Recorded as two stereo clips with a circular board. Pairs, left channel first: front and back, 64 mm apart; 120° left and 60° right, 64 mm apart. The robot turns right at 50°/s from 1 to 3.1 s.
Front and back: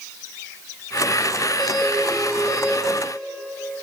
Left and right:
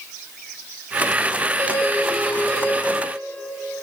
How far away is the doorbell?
About 1.2 m.